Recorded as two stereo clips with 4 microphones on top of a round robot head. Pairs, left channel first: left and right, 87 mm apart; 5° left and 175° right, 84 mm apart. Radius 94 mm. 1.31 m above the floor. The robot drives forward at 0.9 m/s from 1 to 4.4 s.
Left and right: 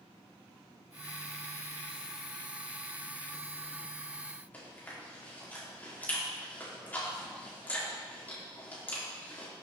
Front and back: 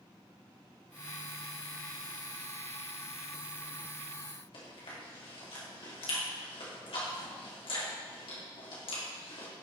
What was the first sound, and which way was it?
Chewing, 20° left.